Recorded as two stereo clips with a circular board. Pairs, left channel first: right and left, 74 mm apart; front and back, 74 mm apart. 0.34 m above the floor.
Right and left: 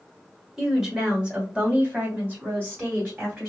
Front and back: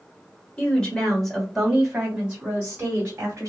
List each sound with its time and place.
0.6 s a woman speaking: 20° left, 1.4 m; by 3.5 s 140° left, 1.8 m